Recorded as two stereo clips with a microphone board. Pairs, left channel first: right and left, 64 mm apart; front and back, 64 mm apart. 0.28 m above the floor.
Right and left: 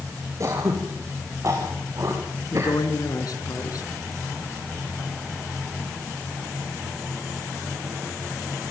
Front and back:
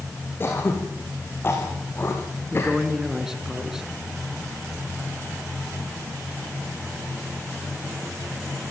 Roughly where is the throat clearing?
Ahead left.